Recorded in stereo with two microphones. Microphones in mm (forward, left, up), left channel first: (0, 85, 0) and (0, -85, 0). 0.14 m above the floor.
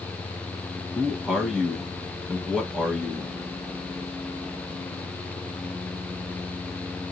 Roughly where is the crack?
No crack in this recording.